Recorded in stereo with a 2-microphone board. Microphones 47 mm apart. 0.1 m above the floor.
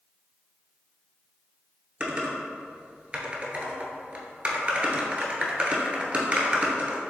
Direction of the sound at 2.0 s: 25° right (ahead or behind).